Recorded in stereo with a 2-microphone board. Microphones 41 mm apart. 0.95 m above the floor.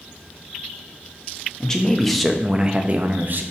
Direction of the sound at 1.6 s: 15° left (ahead or behind).